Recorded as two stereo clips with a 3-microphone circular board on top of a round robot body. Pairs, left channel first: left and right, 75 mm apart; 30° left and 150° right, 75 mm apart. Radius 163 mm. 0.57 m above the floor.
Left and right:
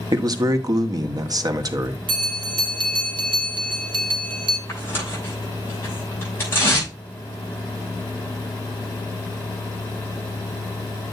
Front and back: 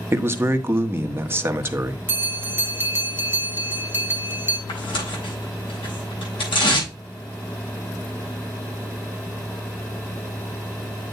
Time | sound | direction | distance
0.1 | a man speaking | 95° right | 1.4 m
2.1 | a bell | 90° right | 1.1 m
4.7 | tearing paper | 30° left | 6.5 m